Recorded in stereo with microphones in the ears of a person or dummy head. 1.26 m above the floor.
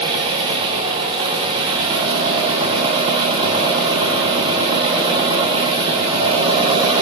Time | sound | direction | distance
0.0 | an engine running | 30° right (ahead or behind) | 1.1 m